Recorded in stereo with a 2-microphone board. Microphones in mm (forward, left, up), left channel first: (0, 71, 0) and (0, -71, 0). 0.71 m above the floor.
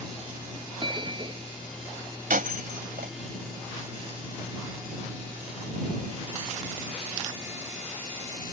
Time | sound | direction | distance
0.8 | a bell | 35° right (ahead or behind) | ?
2.3 | breaking glass | 85° right | ?